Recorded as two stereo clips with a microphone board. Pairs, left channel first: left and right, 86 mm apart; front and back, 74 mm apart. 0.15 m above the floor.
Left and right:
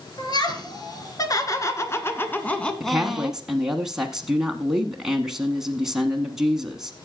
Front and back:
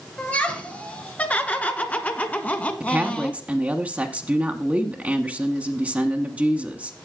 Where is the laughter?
70° left, 2.5 m; by 3.4 s 40° right, 1.2 m.